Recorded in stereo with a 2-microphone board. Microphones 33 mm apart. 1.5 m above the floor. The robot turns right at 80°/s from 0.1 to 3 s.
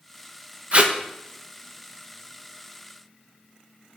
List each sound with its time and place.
0.7 s tape being pulled: 40° right (ahead or behind), 0.8 m; by 0.9 s 35° right (ahead or behind), 0.8 m